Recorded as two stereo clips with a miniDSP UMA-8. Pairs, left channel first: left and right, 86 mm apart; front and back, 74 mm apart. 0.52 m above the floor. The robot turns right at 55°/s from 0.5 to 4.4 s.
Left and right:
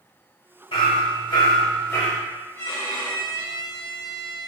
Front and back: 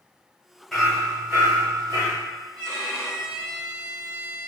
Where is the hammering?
90° left, 0.9 m; by 2.2 s 170° left, 0.9 m.